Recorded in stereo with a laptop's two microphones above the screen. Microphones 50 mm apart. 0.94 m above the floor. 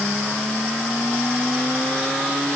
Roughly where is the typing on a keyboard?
I don't hear typing on a keyboard.